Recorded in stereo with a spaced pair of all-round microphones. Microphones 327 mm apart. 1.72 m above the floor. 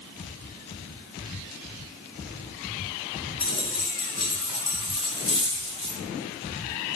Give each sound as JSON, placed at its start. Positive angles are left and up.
{"t": 3.4, "sound": "a dropped coin", "side_deg": 55, "distance_m": 2.0}